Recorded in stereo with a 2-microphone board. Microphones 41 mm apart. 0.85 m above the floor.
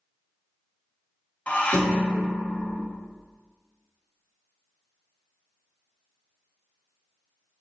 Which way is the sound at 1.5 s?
30° left (ahead or behind).